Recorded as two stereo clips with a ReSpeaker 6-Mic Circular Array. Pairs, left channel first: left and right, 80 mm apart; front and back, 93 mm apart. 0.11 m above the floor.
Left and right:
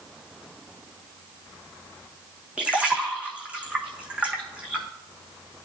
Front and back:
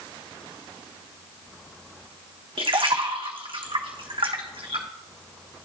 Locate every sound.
2.6 s a splash: 165° right, 1.1 m